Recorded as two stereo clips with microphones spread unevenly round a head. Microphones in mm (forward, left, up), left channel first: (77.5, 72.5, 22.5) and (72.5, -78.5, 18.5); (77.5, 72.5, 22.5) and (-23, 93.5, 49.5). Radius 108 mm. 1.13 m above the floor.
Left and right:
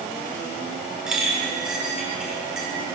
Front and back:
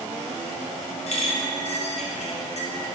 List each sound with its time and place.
1.1 s a clink: 5° right, 2.5 m